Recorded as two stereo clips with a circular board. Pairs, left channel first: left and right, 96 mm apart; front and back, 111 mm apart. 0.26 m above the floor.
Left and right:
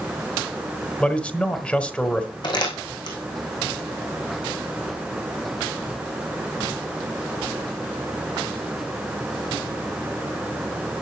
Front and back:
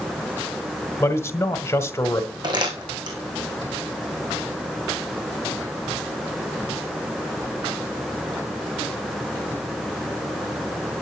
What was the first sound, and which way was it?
A man speaking, 30° left.